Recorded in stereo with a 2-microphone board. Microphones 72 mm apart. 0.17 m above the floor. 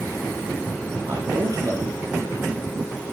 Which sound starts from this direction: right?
A man speaking, at 1.1 s.